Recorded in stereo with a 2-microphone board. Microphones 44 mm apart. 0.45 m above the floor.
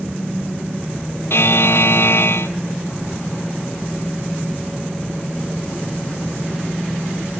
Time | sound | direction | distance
1.3 | a buzzer | 65° left (ahead or behind) | 0.7 m